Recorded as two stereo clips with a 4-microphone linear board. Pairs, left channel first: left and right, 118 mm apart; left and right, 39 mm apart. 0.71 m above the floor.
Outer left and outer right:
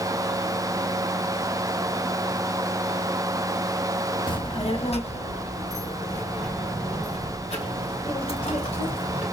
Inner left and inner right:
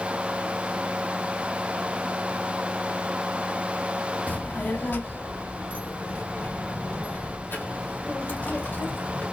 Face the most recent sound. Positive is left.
turn(degrees=65)  # may be behind; listen again after turning